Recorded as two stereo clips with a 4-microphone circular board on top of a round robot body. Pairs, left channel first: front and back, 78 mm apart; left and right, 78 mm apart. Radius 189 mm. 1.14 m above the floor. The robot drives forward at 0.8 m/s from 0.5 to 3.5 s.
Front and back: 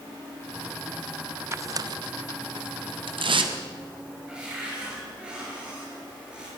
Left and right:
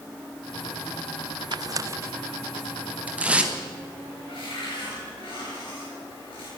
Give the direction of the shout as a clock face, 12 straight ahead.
I don't hear a shout.